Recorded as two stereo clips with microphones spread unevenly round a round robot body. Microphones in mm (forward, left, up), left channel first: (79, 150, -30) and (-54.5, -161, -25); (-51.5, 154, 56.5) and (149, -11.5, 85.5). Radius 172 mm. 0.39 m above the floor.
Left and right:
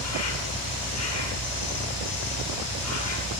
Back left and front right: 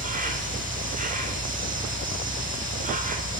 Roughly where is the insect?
Ahead.